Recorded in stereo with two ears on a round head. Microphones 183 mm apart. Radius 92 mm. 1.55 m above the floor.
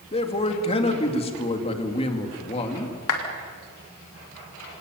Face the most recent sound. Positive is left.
turn(degrees=85)